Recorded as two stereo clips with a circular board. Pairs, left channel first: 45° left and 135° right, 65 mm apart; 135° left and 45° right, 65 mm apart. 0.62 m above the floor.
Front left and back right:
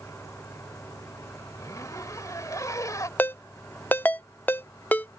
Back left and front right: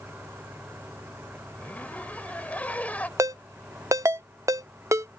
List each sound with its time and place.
0.0 s an engine running: 10° left
1.6 s a zipper: 70° left
3.2 s a ringtone: 15° right